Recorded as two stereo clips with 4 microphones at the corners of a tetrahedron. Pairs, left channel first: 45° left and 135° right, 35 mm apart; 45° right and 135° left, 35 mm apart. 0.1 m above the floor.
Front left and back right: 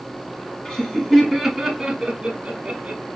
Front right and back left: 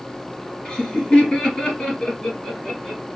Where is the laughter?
Straight ahead, 1.5 m; by 3.0 s 100° right, 1.9 m.